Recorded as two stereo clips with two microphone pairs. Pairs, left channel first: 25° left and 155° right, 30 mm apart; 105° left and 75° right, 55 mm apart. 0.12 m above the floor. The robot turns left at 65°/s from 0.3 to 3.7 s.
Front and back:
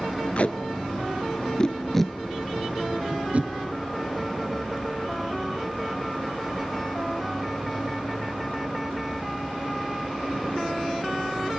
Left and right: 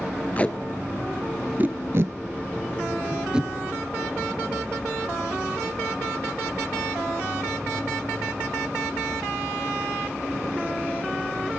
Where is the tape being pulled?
50° left, 0.7 m; by 3.5 s 155° right, 0.7 m.